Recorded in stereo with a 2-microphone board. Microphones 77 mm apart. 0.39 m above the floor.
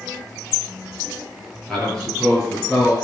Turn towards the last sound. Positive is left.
turn(degrees=-10)  # may be behind; listen again after turning